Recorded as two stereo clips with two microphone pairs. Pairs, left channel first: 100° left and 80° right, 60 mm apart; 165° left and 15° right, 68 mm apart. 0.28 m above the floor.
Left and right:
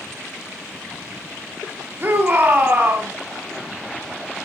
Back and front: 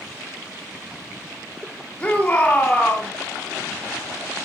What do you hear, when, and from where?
2.0 s a shout: 125° right, 2.5 m